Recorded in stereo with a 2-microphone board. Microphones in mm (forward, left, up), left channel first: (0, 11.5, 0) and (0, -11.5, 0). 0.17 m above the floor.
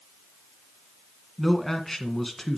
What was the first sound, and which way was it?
A man speaking, 5° left (ahead or behind).